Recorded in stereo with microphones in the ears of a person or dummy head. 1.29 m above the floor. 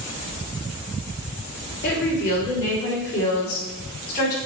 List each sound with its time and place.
1.8 s a woman speaking: 65° left (ahead or behind), 3 m; by 4.4 s 60° left (ahead or behind), 4.5 m